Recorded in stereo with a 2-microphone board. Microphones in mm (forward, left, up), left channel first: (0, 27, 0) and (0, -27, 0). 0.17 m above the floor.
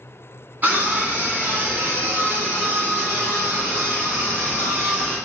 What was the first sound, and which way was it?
A scream, 35° right (ahead or behind).